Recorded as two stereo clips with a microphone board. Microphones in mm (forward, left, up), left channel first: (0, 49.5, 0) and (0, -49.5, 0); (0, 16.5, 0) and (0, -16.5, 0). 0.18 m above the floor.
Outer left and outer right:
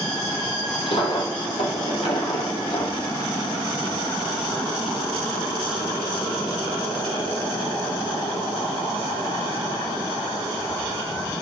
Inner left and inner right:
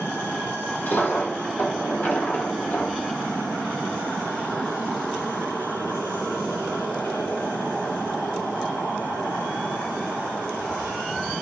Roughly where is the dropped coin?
Left.